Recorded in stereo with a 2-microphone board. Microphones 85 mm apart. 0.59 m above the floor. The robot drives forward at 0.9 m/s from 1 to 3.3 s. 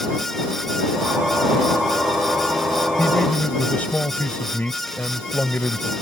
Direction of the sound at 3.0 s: 20° left (ahead or behind).